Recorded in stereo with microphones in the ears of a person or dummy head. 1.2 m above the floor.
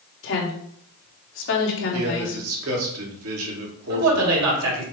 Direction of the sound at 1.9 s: 75° right (ahead or behind).